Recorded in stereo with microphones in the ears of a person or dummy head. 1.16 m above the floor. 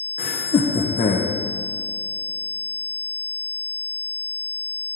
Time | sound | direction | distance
0.2 | laughter | 30° left (ahead or behind) | 0.9 m